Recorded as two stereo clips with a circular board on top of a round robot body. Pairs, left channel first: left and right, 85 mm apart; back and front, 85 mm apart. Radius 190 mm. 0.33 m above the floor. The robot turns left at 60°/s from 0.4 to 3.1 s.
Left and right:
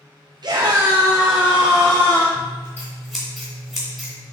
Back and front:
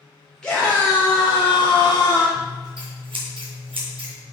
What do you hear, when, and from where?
0.4 s a scream: 100° right, 1.4 m; by 2.2 s 150° left, 1.4 m
2.4 s scissors: 45° left, 3 m; by 4.1 s straight ahead, 3 m